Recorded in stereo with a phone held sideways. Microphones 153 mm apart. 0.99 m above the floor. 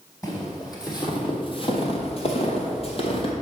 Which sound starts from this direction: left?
Footsteps, at 0.2 s.